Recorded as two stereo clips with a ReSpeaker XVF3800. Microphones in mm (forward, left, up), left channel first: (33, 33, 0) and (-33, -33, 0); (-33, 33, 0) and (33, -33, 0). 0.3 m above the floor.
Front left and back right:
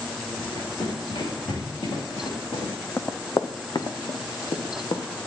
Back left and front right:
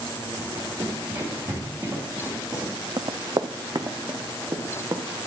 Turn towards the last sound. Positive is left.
turn(degrees=15)